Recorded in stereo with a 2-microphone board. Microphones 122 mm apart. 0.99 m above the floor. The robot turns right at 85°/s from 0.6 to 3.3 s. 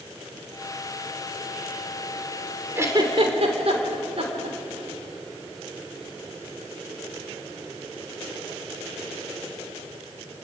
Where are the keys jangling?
I don't hear keys jangling.